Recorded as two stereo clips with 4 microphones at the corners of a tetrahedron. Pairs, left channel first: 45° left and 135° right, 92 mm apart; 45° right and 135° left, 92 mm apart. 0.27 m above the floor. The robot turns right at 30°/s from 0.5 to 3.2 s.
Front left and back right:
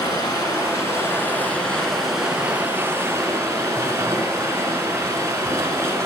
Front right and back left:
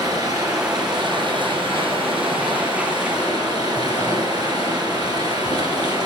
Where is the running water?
90° left, 2 m; by 6.1 s 170° left, 2 m.